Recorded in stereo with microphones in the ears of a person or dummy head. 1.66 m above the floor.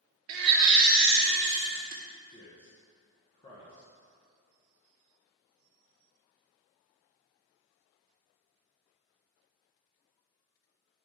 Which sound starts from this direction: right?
A baby crying, at 0.3 s.